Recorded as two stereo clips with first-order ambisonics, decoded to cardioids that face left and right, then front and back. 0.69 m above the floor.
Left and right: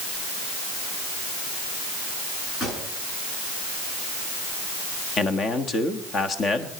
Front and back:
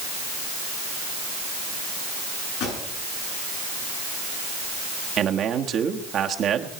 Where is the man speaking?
140° left, 1.3 m.